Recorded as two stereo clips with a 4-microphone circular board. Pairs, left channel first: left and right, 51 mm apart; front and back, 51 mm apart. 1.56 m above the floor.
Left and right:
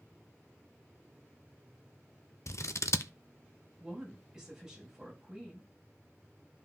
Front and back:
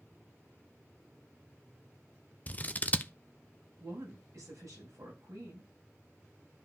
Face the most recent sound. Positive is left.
turn(degrees=-170)